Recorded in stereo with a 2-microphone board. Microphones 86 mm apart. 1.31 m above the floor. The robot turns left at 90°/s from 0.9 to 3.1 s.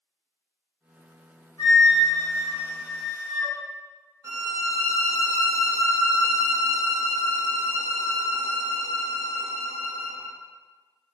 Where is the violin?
35° right (ahead or behind), 0.9 m.